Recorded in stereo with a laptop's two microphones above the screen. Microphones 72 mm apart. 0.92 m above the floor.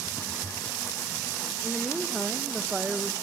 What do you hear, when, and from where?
1.6 s a woman speaking: centre (ahead or behind), 1.0 m; by 3.1 s 5° right (ahead or behind), 0.9 m